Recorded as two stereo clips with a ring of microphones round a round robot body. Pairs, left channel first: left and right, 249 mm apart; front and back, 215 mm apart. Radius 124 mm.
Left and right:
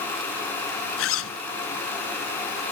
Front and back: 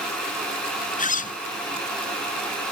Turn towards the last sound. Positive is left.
turn(degrees=55)